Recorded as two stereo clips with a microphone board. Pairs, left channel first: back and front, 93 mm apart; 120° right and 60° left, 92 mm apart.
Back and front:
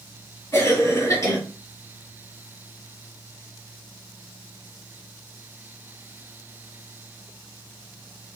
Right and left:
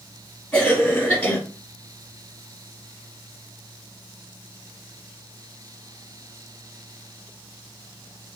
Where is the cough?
175° left, 1.7 m.